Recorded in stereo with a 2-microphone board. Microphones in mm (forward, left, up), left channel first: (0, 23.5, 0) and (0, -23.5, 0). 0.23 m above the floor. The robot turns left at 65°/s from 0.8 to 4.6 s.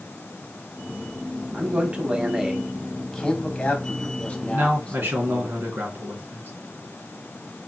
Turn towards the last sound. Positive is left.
turn(degrees=-55)  # may be behind; listen again after turning